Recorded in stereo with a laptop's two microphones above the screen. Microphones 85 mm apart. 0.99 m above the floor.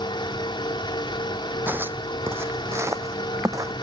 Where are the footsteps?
25° right (ahead or behind); by 3.7 s 40° right (ahead or behind).